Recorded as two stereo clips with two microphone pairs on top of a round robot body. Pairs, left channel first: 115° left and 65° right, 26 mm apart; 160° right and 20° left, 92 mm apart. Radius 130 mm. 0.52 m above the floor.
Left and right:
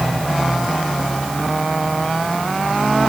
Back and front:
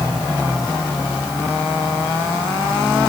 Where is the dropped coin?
No dropped coin in this recording.